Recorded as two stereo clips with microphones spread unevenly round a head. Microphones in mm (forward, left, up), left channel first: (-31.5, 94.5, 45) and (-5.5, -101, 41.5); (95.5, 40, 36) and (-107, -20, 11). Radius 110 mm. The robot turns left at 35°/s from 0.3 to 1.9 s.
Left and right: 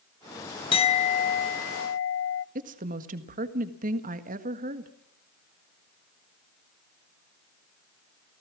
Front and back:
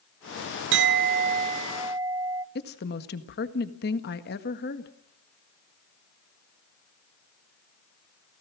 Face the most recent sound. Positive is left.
turn(degrees=-30)